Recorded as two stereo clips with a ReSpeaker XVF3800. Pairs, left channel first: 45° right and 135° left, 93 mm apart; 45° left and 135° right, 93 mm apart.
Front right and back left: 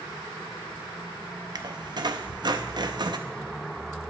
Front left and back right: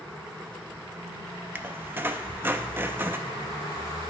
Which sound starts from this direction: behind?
A squeak, at 1.6 s.